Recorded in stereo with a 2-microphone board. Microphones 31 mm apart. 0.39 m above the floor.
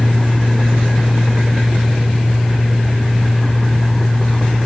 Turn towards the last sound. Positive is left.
No sound to turn to.